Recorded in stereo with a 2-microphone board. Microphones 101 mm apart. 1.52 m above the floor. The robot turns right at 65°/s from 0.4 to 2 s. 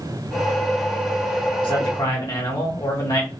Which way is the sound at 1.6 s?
65° left (ahead or behind).